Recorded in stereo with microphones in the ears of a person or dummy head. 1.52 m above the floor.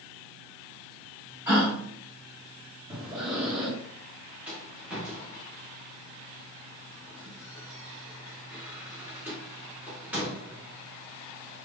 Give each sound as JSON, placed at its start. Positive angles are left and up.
{"t": 1.5, "sound": "a gasp", "side_deg": -10, "distance_m": 1.5}
{"t": 2.9, "sound": "breathing", "side_deg": -25, "distance_m": 1.5}
{"t": 4.5, "sound": "a rattle", "side_deg": -5, "distance_m": 1.0}